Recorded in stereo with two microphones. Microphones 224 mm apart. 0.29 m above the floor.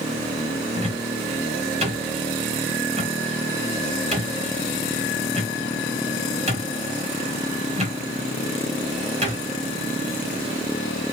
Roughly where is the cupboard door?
Right.